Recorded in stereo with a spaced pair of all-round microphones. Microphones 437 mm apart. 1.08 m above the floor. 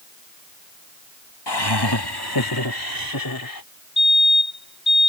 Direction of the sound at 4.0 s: 25° left (ahead or behind).